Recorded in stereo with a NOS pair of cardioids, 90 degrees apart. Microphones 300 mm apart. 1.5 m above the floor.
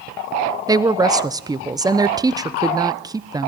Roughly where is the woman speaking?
Ahead.